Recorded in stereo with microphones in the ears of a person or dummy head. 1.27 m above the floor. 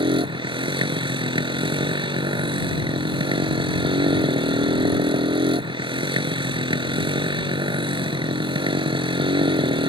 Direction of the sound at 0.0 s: 25° right (ahead or behind).